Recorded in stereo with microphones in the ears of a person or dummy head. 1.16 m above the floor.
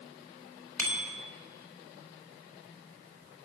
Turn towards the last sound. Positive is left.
turn(degrees=10)  # may be behind; listen again after turning